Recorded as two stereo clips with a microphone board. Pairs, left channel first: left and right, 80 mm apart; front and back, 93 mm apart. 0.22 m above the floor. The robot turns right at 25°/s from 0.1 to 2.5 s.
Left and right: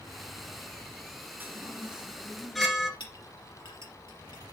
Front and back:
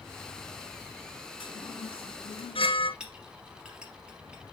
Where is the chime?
25° right, 1.2 m; by 2.9 s straight ahead, 1.2 m.